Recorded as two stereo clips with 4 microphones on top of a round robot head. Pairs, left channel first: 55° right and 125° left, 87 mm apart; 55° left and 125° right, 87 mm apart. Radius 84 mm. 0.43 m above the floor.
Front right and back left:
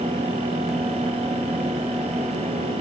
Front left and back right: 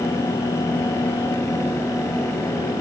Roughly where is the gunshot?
I don't hear a gunshot.